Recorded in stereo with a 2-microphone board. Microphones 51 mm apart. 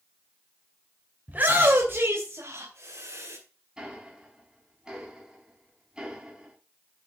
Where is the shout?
35° right (ahead or behind), 3 m; by 3.4 s 65° right (ahead or behind), 4.5 m.